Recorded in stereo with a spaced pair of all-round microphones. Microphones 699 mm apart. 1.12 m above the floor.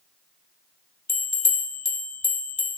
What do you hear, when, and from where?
1.1 s a bell: 25° left (ahead or behind), 1.1 m